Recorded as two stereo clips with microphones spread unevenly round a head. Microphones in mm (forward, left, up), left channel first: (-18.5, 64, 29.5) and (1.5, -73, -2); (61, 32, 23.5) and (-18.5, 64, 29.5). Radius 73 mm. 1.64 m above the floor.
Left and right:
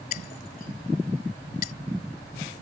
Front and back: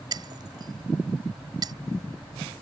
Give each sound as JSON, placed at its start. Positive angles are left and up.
{"t": 0.1, "sound": "breaking glass", "azimuth_deg": 125}